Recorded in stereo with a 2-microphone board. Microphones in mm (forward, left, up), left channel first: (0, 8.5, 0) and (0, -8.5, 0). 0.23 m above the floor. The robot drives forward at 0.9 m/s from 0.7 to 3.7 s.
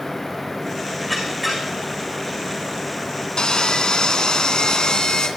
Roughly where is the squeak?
Centre.